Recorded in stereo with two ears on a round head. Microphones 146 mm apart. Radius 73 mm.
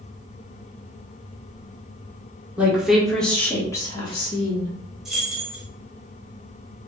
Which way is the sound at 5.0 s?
5° right (ahead or behind).